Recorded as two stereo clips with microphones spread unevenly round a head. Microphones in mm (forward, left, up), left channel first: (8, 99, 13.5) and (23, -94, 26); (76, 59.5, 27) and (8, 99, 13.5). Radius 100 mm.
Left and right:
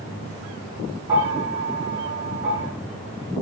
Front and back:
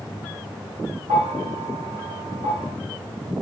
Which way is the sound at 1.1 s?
165° right.